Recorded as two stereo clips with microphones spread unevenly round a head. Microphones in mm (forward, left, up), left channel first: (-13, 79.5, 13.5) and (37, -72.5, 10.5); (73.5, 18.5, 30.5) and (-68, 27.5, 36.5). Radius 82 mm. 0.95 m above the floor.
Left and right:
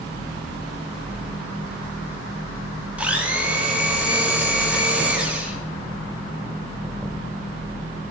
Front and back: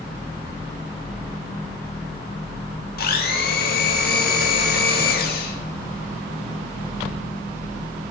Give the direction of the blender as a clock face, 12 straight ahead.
12 o'clock.